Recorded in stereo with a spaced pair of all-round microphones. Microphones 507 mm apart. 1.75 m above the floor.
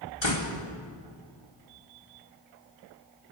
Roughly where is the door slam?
Left.